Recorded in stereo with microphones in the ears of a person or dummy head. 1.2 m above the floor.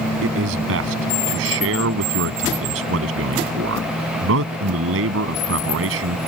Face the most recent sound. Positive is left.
turn(degrees=-70)  # may be behind; listen again after turning